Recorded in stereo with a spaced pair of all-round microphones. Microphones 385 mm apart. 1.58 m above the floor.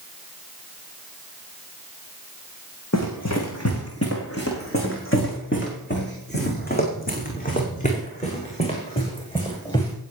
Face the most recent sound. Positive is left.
turn(degrees=10)  # may be behind; listen again after turning